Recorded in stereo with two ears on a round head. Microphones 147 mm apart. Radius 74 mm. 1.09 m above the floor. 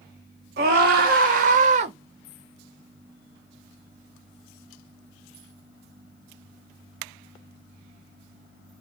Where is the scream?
65° right (ahead or behind), 1.4 m; by 1.9 s 40° right (ahead or behind), 0.9 m.